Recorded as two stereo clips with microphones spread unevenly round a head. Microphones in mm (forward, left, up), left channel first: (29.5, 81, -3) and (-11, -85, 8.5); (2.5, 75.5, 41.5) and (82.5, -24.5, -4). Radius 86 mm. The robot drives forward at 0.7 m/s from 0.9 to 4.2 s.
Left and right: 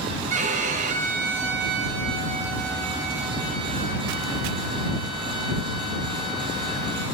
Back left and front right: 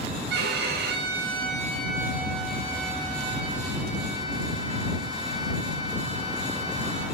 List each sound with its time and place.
0.3 s a violin: 60° right, 0.7 m; by 7.0 s 165° right, 2 m